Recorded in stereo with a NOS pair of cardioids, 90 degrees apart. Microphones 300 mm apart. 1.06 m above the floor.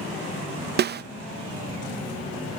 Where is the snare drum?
35° right.